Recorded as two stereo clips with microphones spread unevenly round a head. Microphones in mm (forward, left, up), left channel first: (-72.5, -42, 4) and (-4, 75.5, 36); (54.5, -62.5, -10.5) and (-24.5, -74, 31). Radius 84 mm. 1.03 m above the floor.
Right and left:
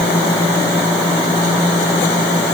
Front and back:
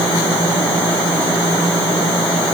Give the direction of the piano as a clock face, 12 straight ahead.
I don't hear a piano.